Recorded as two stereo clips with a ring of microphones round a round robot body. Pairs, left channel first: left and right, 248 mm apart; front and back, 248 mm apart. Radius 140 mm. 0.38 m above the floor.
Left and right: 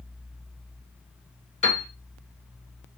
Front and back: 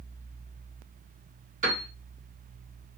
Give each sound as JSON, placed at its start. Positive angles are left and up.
{"t": 1.6, "sound": "a piano", "azimuth_deg": 140, "distance_m": 1.6}